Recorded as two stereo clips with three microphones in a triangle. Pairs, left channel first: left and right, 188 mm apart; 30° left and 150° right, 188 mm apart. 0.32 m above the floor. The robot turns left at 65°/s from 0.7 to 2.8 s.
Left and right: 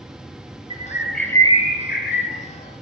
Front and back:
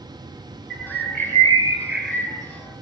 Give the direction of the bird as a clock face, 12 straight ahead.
5 o'clock.